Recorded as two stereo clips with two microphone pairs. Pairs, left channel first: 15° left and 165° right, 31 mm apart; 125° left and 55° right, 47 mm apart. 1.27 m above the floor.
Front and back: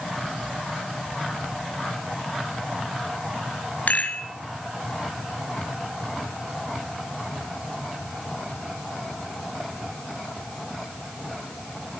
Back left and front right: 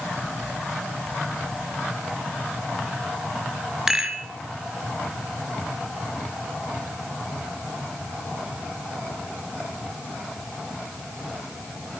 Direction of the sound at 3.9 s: 20° left.